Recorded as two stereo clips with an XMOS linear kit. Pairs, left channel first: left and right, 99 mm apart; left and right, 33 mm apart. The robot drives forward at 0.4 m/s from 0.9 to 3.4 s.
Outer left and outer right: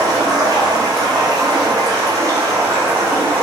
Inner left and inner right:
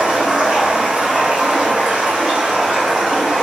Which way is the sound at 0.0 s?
40° right (ahead or behind).